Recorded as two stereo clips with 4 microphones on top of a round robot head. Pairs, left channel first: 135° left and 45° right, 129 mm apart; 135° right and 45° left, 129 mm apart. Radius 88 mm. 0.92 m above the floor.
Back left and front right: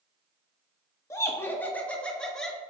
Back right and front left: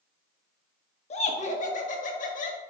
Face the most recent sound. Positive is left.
turn(degrees=-140)